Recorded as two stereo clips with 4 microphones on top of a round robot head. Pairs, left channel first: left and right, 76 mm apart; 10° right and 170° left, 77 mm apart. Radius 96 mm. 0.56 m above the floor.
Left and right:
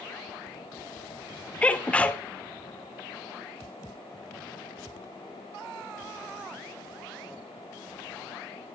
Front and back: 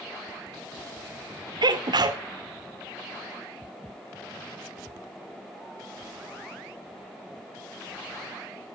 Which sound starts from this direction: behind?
A sneeze, at 1.6 s.